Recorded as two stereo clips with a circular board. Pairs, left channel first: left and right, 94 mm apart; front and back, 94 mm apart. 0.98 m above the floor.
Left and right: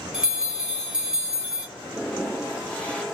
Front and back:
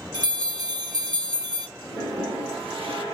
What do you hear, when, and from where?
0.1 s a bell: 170° right, 1.2 m
1.8 s a toilet flushing: 165° left, 1.6 m